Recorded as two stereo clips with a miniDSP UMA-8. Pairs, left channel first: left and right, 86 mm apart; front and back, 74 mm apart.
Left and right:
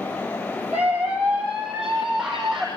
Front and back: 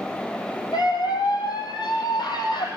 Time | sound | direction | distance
0.7 | a scream | 10° right | 4.5 m